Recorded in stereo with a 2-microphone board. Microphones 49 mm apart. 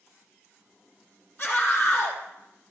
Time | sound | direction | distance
1.4 | a scream | 40° left (ahead or behind) | 4.5 m